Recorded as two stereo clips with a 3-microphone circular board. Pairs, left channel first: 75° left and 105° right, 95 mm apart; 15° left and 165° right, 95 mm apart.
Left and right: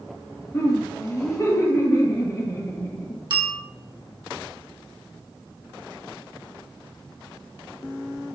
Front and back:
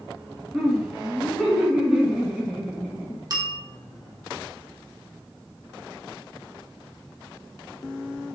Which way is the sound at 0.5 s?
115° left.